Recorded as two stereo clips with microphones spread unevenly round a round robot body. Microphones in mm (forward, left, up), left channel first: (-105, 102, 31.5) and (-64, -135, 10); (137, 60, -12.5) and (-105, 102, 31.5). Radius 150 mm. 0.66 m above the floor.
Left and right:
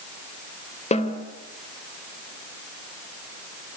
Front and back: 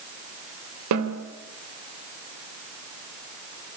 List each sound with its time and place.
0.9 s a snare drum: 165° left, 3 m